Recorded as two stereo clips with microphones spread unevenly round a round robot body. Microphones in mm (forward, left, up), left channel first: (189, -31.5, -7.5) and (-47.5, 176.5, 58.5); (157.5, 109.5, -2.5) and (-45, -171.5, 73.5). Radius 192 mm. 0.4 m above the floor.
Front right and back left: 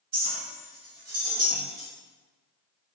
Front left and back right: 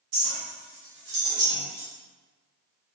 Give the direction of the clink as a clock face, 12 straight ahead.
5 o'clock.